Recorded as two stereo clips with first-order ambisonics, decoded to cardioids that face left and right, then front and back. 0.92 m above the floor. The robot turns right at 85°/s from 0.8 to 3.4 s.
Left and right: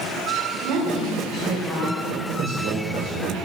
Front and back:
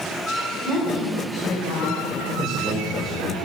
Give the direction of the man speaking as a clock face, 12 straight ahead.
4 o'clock.